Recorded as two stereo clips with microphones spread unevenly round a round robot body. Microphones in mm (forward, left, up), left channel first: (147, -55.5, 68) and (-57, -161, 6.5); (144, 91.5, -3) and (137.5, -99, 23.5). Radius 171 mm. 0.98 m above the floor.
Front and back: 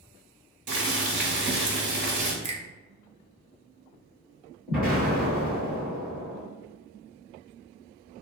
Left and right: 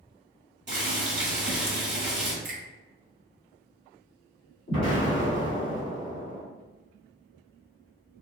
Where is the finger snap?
130° right, 0.6 m.